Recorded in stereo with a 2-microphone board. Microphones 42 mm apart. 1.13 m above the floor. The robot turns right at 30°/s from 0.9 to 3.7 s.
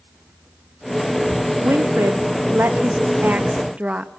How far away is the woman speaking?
About 1.6 m.